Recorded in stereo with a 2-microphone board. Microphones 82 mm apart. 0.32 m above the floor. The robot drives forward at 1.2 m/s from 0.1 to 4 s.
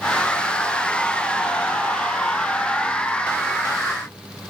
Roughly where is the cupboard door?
I don't hear a cupboard door.